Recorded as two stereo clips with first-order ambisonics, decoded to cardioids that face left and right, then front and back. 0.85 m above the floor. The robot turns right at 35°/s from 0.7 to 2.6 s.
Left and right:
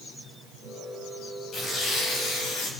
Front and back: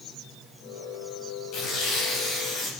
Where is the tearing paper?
25° left, 3 m; by 2.7 s 65° left, 3 m.